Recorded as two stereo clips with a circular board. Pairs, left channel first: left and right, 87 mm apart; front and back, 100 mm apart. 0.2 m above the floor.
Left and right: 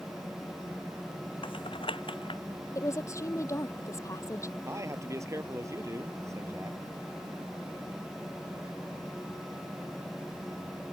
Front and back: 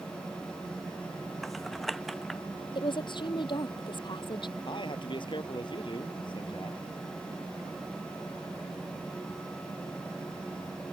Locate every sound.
1.4 s typing on a keyboard: 90° left
2.8 s a woman speaking: 35° left
4.7 s a man speaking: 35° right